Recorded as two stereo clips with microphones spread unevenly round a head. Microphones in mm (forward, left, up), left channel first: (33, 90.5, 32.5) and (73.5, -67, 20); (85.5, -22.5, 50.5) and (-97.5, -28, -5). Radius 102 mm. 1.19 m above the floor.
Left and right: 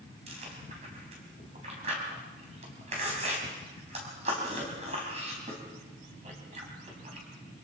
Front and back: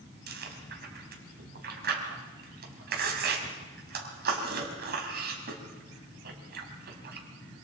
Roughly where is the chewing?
Behind right.